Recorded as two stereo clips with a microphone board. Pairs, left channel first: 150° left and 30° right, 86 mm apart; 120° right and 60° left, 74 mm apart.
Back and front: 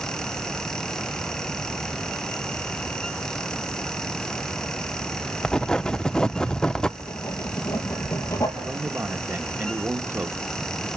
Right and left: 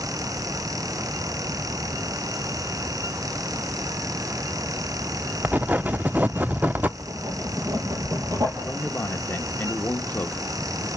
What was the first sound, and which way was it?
Writing, 80° left.